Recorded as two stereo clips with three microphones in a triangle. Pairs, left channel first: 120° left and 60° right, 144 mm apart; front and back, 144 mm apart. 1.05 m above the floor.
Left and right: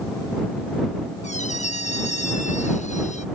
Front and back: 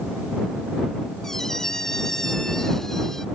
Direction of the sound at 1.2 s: 85° left.